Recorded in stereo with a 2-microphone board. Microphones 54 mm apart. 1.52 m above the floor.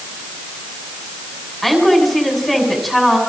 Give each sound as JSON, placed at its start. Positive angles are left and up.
{"t": 1.6, "sound": "a woman speaking", "side_deg": 5, "distance_m": 6.5}